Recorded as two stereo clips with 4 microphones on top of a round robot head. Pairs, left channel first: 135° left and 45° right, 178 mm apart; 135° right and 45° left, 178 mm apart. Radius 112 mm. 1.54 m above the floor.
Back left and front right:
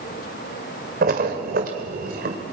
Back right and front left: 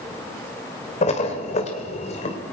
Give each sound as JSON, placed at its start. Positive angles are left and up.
{"t": 1.0, "sound": "a splash", "azimuth_deg": -85, "distance_m": 2.0}